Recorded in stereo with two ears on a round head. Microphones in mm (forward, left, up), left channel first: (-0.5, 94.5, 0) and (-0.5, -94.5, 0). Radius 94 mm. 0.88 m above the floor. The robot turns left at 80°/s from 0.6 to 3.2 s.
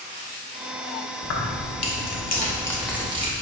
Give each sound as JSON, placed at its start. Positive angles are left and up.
{"t": 1.2, "sound": "keys jangling", "azimuth_deg": 130, "distance_m": 1.3}